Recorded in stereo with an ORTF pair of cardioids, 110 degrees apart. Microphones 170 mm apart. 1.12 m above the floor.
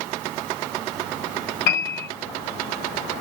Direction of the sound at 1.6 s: 65° left.